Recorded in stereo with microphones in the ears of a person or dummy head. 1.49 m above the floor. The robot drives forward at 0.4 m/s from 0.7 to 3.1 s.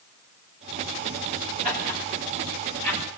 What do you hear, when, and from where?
1.6 s laughter: 50° right (ahead or behind), 8.5 m; by 3.0 s 45° right (ahead or behind), 9 m